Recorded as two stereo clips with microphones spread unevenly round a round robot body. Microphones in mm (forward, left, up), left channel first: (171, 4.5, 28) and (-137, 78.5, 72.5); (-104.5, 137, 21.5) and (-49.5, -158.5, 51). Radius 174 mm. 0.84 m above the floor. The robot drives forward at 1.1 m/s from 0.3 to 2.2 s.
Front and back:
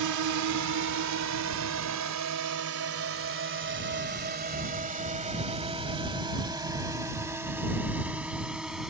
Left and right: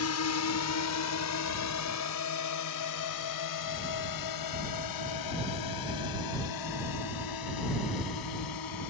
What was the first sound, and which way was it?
A drone, 135° left.